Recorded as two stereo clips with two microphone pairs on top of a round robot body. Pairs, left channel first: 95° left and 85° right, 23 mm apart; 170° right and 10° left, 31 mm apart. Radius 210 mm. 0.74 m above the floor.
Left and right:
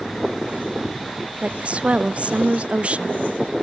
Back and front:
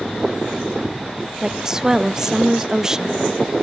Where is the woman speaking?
60° right, 1.1 m.